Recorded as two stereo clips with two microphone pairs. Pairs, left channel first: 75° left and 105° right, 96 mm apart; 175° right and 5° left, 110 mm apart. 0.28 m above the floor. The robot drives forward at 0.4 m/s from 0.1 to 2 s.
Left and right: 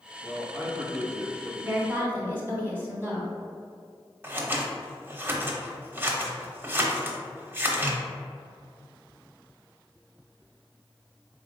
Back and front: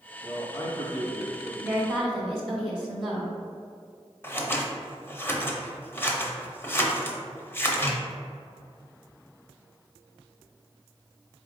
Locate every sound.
0.2 s a man speaking: 140° right, 1.2 m; by 1.5 s 155° right, 1.6 m
1.6 s a woman speaking: 70° right, 1.0 m; by 3.3 s 95° right, 0.9 m
4.2 s scissors: 135° right, 0.6 m